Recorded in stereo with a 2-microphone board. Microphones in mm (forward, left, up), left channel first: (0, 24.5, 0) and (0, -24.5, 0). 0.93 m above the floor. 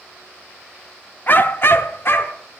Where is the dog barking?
40° left (ahead or behind), 0.5 m; by 2.4 s 55° left (ahead or behind), 0.9 m.